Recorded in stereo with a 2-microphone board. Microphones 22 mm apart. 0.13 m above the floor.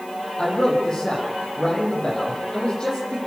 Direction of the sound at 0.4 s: 40° left (ahead or behind).